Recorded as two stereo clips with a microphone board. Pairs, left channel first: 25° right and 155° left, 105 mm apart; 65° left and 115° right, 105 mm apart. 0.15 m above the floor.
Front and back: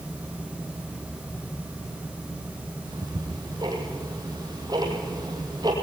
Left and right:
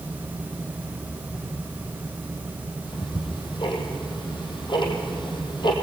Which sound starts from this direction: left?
Ticking, at 2.9 s.